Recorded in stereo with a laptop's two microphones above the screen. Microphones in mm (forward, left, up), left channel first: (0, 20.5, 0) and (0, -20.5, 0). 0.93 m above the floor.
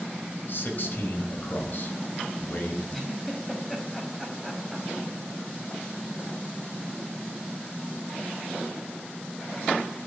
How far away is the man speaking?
About 4.5 m.